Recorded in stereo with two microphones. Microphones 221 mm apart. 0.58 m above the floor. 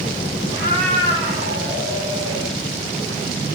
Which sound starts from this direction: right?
A cat meowing, at 0.5 s.